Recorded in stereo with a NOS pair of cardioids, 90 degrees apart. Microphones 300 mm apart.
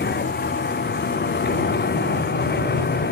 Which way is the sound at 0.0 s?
35° left.